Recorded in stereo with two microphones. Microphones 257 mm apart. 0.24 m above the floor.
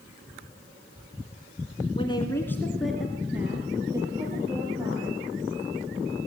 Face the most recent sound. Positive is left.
turn(degrees=-20)  # may be behind; listen again after turning